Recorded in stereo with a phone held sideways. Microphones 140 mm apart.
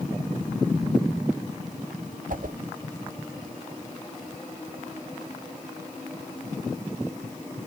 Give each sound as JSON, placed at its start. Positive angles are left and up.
{"t": 2.3, "sound": "a whoosh", "side_deg": -70, "distance_m": 0.9}